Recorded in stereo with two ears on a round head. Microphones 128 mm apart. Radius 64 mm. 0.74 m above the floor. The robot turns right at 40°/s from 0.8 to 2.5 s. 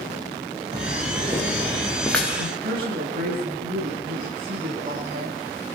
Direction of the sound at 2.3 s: 60° right (ahead or behind).